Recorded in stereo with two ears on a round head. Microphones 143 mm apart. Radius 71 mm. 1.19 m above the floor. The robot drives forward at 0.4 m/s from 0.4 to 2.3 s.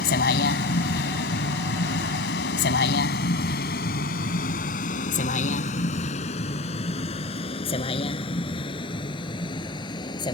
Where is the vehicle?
70° left (ahead or behind); by 10.3 s 30° left (ahead or behind).